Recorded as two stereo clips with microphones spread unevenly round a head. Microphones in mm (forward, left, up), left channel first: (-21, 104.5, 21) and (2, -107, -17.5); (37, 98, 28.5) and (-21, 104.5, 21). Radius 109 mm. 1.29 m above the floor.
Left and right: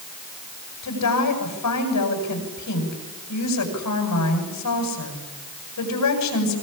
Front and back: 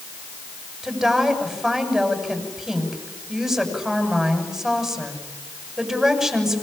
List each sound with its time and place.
0.8 s a woman speaking: 90° left, 9 m